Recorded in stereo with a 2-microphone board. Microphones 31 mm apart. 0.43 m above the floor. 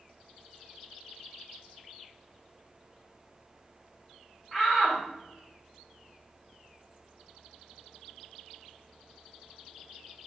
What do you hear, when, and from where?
4.5 s a shout: 10° right (ahead or behind), 1.0 m